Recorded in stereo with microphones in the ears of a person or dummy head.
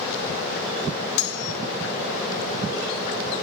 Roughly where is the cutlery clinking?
Left.